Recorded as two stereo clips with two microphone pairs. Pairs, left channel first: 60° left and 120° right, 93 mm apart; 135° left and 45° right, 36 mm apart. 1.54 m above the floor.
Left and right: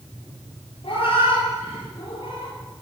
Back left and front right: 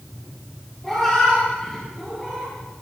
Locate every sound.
0.8 s a cat meowing: 55° left, 9.5 m; by 2.5 s 60° left, 8 m